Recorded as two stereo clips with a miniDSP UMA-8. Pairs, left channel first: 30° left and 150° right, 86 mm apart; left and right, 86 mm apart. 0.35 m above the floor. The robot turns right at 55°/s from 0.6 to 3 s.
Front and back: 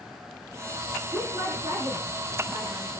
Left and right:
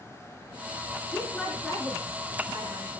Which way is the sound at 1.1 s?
155° left.